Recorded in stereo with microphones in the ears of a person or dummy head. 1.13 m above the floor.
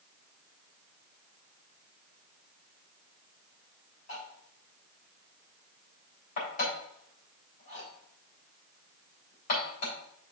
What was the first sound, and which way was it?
Cutlery clinking, 50° left (ahead or behind).